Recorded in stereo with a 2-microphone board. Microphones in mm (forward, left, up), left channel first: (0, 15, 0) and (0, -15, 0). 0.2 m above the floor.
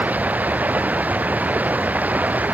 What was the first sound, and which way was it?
Running water, 60° right (ahead or behind).